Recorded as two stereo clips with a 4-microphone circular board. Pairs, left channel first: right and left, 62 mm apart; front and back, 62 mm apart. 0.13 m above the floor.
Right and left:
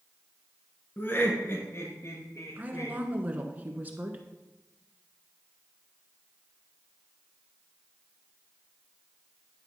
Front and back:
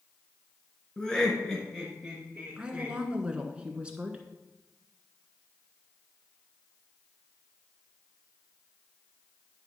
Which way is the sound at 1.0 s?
65° right.